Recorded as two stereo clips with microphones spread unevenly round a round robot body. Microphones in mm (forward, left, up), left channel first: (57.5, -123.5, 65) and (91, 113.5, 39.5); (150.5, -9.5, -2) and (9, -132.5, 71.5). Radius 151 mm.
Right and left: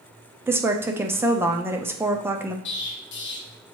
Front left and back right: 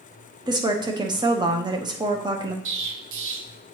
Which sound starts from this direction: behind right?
An explosion, at 2.6 s.